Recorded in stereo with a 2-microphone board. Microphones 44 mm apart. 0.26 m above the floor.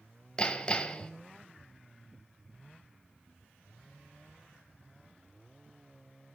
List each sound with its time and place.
0.4 s hammering: 20° left (ahead or behind), 0.9 m